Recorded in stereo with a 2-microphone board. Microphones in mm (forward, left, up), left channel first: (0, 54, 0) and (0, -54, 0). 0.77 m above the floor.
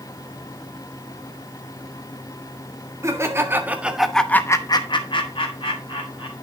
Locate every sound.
3.0 s laughter: 25° right (ahead or behind), 1.9 m; by 6.3 s 50° left (ahead or behind), 2.5 m